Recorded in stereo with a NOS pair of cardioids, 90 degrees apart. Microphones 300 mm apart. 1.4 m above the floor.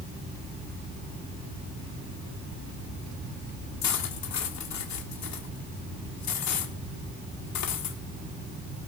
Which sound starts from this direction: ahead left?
Cutlery clinking, at 3.8 s.